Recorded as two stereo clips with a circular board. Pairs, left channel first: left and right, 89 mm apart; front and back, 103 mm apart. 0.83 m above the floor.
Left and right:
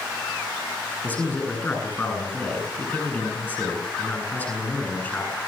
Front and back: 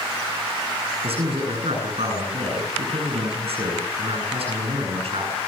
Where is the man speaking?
160° left, 9.5 m.